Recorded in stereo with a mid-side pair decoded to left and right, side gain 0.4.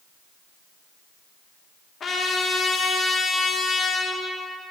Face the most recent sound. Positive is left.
turn(degrees=50)